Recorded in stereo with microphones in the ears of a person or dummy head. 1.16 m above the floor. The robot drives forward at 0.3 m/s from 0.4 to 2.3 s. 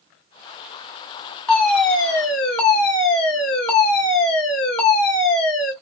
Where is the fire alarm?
Centre (ahead or behind), 1.8 m.